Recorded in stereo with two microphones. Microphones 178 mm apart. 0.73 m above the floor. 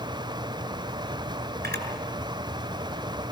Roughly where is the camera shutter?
Right.